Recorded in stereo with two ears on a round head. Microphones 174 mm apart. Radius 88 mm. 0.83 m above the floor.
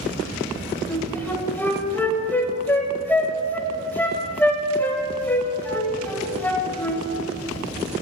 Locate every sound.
0.9 s a flute: 10° left (ahead or behind), 0.7 m